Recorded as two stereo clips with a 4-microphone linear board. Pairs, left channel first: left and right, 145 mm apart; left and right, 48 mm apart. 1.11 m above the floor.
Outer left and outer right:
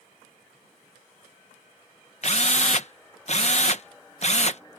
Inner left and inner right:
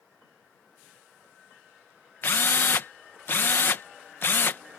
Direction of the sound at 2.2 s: 50° left (ahead or behind).